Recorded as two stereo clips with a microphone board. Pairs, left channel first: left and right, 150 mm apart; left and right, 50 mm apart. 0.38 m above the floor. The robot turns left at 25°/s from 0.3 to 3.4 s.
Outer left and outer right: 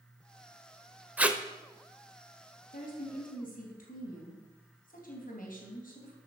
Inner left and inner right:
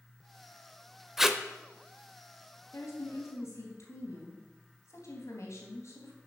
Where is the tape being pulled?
10° right (ahead or behind), 0.8 m; by 1.4 s 5° right (ahead or behind), 0.8 m.